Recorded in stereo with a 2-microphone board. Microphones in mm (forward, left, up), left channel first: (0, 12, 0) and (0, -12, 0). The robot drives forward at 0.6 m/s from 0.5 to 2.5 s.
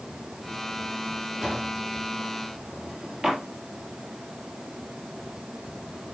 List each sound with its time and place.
1.4 s a drawer: 15° right (ahead or behind), 3 m; by 3.4 s 20° right (ahead or behind), 2.5 m